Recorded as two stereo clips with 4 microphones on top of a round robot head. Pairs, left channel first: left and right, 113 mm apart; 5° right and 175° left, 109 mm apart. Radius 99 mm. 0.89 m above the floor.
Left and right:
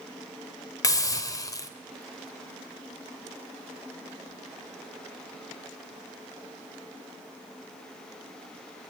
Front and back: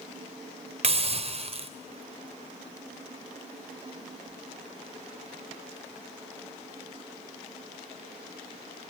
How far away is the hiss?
About 2.5 m.